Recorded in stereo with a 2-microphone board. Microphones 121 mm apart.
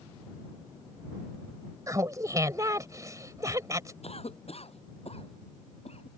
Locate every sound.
1.9 s laughter: 30° right (ahead or behind)
4.0 s a cough: 60° left (ahead or behind)